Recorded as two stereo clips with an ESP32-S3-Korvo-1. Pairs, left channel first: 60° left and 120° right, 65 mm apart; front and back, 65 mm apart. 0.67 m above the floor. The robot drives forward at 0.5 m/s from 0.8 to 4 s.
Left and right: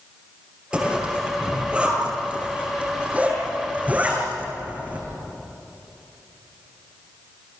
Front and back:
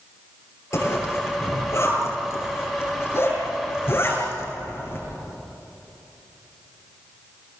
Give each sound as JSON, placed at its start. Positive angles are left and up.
{"t": 0.7, "sound": "a zipper", "azimuth_deg": -45, "distance_m": 9.5}